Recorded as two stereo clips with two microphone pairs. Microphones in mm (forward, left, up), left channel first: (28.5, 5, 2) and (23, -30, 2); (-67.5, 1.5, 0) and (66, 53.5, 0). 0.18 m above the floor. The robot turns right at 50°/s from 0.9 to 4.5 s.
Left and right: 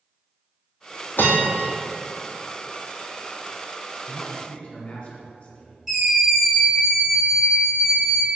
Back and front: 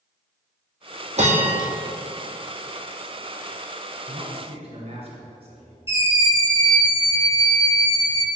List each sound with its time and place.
1.2 s a bell: 60° left, 2 m; by 1.7 s 85° left, 2 m
4.1 s a man speaking: 20° left, 2.5 m; by 5.8 s 40° left, 2.5 m
5.9 s a scream: 165° right, 1.9 m